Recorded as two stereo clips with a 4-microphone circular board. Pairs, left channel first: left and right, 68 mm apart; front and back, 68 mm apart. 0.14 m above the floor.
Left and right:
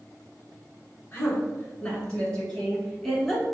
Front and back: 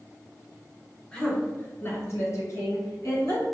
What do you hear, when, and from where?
1.1 s a woman speaking: 70° left, 1.1 m; by 3.4 s straight ahead, 2 m